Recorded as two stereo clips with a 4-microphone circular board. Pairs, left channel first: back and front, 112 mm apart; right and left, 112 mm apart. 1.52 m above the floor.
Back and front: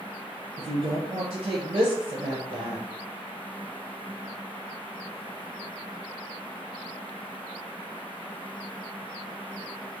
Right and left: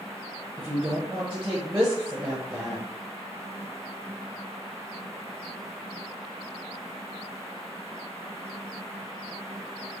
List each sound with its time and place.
0.6 s a woman speaking: 20° left, 1.0 m